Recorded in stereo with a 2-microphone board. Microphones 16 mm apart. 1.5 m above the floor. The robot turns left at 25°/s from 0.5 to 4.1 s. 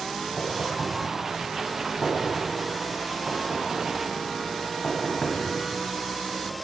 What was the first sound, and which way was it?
Knocking, 55° right (ahead or behind).